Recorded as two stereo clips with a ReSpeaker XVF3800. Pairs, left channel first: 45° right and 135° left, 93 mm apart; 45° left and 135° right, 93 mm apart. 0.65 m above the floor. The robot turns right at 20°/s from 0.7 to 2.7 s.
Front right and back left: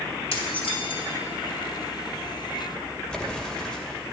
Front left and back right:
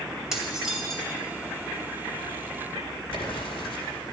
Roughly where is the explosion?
Ahead left.